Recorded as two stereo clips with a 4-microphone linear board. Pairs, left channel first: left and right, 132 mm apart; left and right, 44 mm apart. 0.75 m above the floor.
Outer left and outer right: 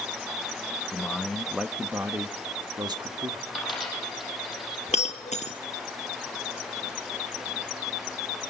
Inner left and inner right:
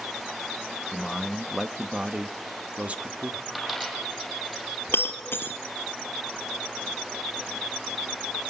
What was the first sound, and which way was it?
A man speaking, 10° left (ahead or behind).